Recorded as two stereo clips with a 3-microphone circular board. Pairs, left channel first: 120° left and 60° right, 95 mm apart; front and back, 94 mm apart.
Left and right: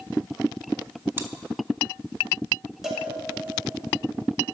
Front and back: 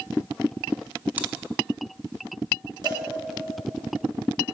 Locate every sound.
1.2 s chewing: 115° right, 0.6 m
2.8 s a cowbell: 145° right, 1.8 m